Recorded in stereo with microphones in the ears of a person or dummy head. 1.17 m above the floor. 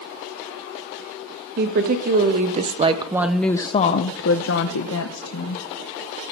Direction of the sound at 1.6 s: 55° right (ahead or behind).